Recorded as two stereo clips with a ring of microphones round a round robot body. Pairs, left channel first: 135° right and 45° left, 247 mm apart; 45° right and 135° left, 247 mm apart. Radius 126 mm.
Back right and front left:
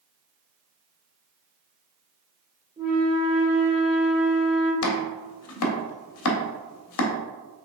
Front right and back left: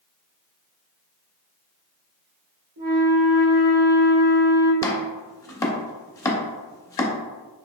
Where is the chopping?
120° right, 0.5 m.